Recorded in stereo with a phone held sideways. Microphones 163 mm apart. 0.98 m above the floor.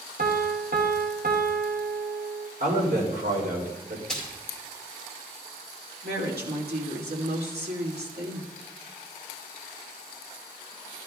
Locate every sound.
0.2 s a piano: 70° right (ahead or behind), 1.0 m
2.6 s a man speaking: 70° right (ahead or behind), 3 m
4.1 s a splash: 5° left (ahead or behind), 2.5 m
6.0 s a woman speaking: 80° right, 2.5 m